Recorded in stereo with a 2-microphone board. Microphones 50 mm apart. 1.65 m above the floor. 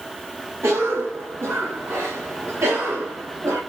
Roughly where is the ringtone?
No ringtone in this recording.